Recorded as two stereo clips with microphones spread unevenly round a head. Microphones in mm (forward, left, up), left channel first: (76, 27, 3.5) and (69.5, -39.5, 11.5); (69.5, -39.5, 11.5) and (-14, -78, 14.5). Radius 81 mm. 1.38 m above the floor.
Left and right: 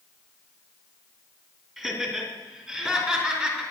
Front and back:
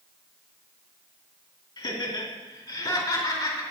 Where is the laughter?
15° right, 2.5 m; by 3.6 s 25° right, 3.5 m.